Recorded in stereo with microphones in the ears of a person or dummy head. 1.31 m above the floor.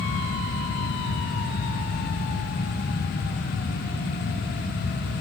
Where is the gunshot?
No gunshot in this recording.